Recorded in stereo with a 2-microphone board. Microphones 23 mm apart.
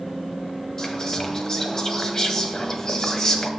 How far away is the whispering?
About 1.6 m.